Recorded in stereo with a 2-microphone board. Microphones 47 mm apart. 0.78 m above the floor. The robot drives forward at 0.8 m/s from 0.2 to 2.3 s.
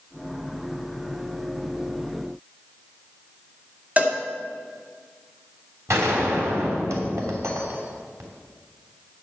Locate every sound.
4.0 s a cowbell: 30° right (ahead or behind), 1.8 m
5.9 s a gunshot: 85° right, 3 m